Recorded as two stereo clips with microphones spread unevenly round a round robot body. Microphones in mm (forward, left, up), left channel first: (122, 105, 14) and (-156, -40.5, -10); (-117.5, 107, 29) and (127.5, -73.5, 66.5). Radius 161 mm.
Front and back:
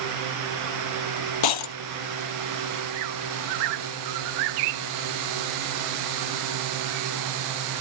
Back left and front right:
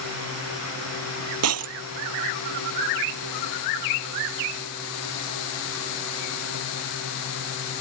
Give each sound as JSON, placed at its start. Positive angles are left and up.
{"t": 1.4, "sound": "breaking glass", "azimuth_deg": 5}